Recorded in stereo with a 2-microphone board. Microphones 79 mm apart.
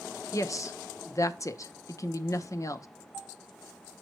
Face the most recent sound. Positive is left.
turn(degrees=45)  # may be behind; listen again after turning